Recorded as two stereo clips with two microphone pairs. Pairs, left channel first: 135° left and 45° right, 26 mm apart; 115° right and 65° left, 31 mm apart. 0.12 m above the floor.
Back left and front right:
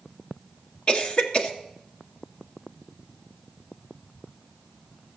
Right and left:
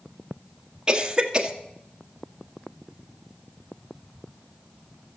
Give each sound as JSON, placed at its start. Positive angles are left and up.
{"t": 0.9, "sound": "a cough", "azimuth_deg": 115, "distance_m": 1.5}